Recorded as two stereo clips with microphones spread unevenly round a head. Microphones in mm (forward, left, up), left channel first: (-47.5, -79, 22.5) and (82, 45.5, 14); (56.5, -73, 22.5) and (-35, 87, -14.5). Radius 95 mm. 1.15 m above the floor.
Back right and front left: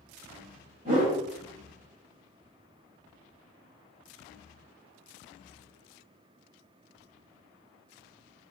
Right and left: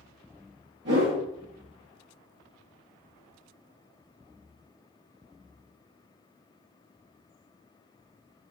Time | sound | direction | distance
0.8 | a whoosh | 90° left | 1.7 m